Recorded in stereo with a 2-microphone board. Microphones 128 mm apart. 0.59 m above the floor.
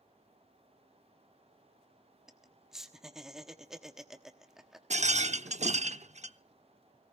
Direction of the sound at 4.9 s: 65° right (ahead or behind).